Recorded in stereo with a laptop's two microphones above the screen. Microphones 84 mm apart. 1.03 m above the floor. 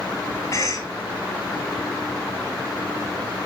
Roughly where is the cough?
Left.